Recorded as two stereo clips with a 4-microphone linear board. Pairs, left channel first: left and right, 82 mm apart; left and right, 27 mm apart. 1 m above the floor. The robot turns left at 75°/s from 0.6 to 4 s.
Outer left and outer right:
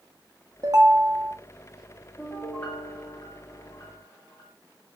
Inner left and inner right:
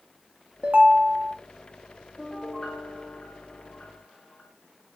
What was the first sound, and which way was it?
A ringtone, 50° right.